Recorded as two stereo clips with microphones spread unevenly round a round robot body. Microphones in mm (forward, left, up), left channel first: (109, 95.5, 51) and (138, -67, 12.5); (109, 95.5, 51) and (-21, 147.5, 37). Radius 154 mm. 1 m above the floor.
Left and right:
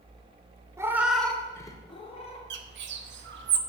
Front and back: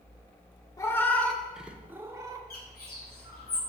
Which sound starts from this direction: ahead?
A cat meowing, at 0.8 s.